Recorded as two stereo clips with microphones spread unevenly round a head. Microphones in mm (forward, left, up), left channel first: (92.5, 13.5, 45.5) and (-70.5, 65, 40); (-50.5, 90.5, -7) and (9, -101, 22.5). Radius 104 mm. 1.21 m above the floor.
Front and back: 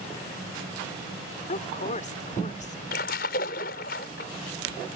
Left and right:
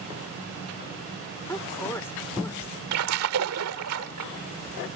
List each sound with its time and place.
1.5 s a woman speaking: 25° left
2.9 s a splash: 65° right